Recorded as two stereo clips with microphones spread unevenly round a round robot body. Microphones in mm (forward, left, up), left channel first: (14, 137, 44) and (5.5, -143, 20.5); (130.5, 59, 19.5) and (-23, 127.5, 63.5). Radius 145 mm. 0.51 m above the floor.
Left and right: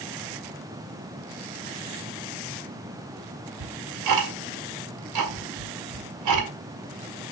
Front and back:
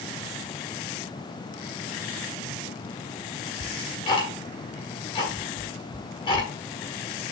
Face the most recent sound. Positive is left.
turn(degrees=-85)